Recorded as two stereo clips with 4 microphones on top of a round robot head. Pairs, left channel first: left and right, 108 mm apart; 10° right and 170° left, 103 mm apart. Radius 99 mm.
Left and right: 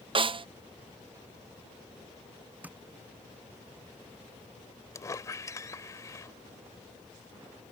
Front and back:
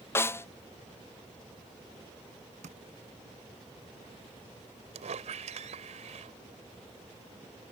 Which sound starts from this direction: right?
A snare drum, at 0.1 s.